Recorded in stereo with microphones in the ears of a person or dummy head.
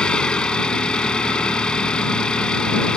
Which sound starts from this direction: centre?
An engine running, at 0.0 s.